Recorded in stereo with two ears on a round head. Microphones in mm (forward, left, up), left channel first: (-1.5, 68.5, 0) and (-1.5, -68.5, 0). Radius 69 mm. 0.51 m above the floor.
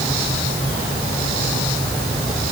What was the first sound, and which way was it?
Only background noise.